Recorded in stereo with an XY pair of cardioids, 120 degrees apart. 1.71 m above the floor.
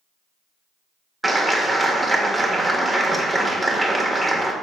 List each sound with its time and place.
1.2 s a clap: 5° right, 1.7 m